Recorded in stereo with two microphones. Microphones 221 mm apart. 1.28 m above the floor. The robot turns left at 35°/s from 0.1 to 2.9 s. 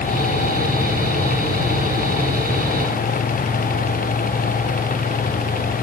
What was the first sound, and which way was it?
Only background noise.